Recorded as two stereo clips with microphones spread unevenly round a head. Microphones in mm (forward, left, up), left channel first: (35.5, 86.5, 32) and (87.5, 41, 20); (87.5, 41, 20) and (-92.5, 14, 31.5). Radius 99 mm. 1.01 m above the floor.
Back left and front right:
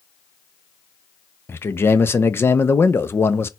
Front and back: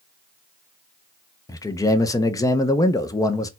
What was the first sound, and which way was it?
A man speaking, 75° left.